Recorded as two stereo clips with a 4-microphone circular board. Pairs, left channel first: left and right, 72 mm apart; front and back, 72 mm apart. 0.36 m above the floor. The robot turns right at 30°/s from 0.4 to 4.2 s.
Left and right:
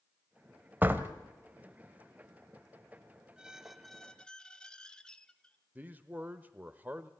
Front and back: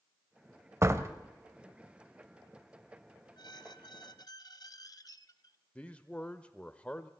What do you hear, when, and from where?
0.8 s a door slam: 145° right, 1.2 m; by 1.1 s 140° right, 1.2 m
3.4 s a squeak: 10° right, 0.8 m; by 5.6 s 15° left, 0.8 m
5.8 s a man speaking: 55° right, 0.9 m